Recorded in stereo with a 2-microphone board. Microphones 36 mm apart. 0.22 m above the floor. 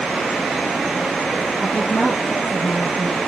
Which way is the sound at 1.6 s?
15° left (ahead or behind).